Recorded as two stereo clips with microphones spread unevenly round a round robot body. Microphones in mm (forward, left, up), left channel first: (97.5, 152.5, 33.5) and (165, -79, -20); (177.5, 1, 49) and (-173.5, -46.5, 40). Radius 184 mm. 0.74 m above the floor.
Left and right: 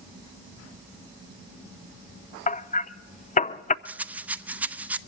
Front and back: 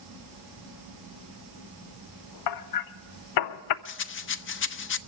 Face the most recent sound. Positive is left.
turn(degrees=-15)